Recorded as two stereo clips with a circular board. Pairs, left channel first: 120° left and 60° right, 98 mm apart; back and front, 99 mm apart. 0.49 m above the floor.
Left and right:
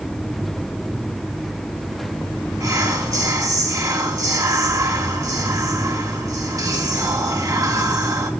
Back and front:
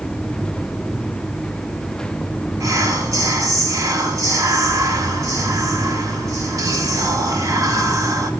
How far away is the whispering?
About 1.2 m.